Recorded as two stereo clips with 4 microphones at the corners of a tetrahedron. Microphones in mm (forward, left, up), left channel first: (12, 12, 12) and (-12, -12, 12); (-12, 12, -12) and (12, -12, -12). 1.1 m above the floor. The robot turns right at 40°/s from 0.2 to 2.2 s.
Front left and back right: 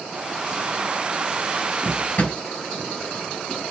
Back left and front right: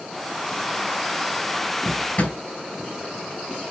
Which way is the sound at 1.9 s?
80° left.